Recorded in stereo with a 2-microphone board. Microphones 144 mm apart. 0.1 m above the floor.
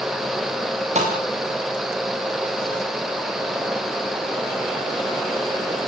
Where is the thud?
50° right (ahead or behind), 7.5 m.